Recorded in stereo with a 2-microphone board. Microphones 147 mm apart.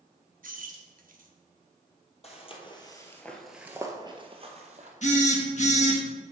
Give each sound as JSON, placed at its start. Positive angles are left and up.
{"t": 0.4, "sound": "keys jangling", "side_deg": -65, "distance_m": 0.9}
{"t": 2.2, "sound": "footsteps", "side_deg": 45, "distance_m": 1.7}
{"t": 5.0, "sound": "a phone buzzing", "side_deg": 55, "distance_m": 1.2}